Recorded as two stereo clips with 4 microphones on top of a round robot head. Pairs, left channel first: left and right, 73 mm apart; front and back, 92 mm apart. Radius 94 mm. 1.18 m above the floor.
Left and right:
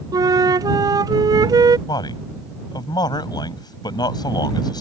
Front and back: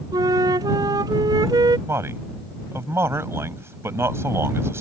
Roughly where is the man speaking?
Behind left.